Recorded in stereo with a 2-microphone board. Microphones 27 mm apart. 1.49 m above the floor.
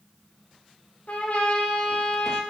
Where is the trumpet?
65° left (ahead or behind), 2 m.